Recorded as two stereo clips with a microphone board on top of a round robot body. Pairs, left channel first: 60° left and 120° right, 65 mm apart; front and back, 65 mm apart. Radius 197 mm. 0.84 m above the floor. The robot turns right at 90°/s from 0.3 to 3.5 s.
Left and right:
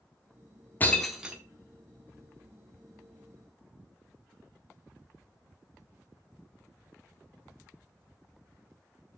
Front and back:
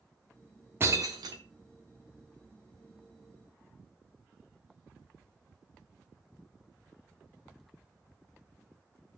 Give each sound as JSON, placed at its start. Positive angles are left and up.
{"t": 0.8, "sound": "breaking glass", "azimuth_deg": 120, "distance_m": 0.7}